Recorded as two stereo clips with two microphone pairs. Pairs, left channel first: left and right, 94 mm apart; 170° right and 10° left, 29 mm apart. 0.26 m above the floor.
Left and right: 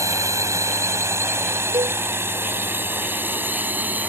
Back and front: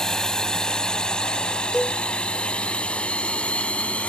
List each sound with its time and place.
0.0 s a drone: 120° right; by 4.1 s 155° right
1.7 s a cowbell: 80° right